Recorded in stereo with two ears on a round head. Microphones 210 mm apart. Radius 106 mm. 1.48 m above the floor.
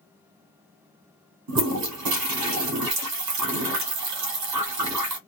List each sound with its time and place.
1.5 s a toilet flushing: 80° right, 1.2 m